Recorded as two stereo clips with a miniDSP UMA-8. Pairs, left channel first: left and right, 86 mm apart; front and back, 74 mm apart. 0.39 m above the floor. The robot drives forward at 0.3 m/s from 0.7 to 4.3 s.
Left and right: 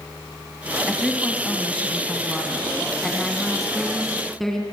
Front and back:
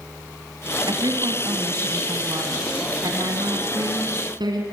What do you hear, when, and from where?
0.9 s a woman speaking: 175° left, 2 m; by 4.6 s straight behind, 3 m